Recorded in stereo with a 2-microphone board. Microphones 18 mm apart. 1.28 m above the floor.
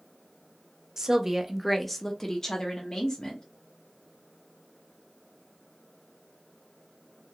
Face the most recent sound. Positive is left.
turn(degrees=50)  # may be behind; listen again after turning